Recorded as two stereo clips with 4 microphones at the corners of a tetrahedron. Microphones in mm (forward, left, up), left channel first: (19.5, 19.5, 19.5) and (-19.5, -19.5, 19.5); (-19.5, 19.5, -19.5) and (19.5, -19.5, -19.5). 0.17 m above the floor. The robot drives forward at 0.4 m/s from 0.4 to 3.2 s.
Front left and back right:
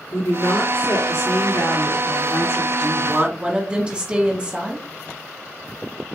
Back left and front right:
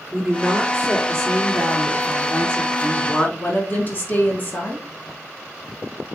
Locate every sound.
0.1 s a woman speaking: 45° left, 3 m; by 2.7 s 60° left, 2.5 m
2.8 s a woman speaking: 165° left, 1.3 m